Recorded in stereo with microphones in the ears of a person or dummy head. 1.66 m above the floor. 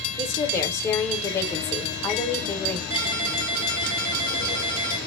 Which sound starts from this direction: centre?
A woman speaking, at 0.2 s.